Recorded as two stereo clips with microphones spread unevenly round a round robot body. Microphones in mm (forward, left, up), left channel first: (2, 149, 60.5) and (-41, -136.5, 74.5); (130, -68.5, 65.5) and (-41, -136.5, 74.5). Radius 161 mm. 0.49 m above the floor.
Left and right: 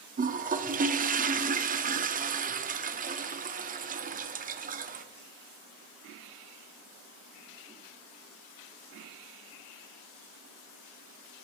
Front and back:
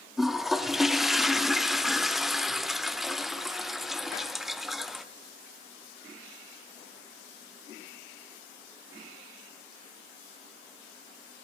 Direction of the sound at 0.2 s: 65° right.